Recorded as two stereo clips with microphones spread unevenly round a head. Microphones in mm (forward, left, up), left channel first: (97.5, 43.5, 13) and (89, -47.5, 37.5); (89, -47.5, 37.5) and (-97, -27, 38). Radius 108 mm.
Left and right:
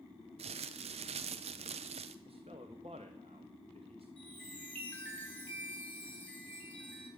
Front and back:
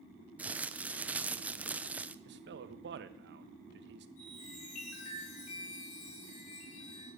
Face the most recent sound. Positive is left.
turn(degrees=10)